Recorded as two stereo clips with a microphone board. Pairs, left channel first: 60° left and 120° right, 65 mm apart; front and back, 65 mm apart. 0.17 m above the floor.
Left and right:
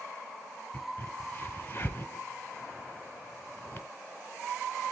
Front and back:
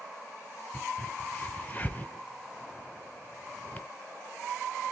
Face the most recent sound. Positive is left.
turn(degrees=35)